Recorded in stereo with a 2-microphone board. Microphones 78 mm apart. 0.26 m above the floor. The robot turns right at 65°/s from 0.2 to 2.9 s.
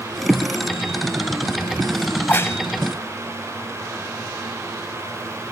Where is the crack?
20° left (ahead or behind), 0.7 m; by 2.6 s 40° left (ahead or behind), 0.7 m.